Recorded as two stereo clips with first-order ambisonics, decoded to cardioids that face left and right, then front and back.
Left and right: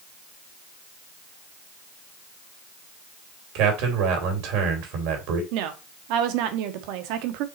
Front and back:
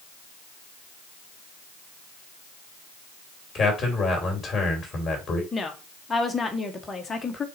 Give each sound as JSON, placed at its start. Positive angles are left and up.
{"t": 3.5, "sound": "a man speaking", "azimuth_deg": -75, "distance_m": 2.5}
{"t": 5.5, "sound": "a woman speaking", "azimuth_deg": -75, "distance_m": 1.2}